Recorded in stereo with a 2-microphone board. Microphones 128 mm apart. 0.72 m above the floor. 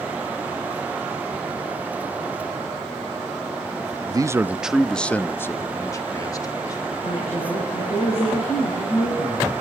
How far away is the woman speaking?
About 8.5 m.